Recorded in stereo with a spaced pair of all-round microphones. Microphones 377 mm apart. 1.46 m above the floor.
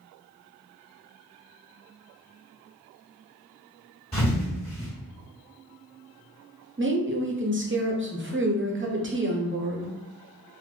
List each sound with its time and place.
4.1 s a thud: 25° left (ahead or behind), 1.5 m
6.8 s a woman speaking: 30° right (ahead or behind), 0.5 m